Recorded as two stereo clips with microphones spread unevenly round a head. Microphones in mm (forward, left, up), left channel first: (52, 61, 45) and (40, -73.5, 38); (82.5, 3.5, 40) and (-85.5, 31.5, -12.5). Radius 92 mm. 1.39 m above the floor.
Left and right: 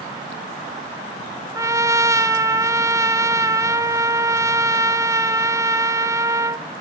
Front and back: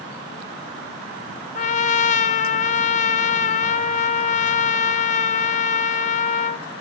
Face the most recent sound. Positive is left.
turn(degrees=-30)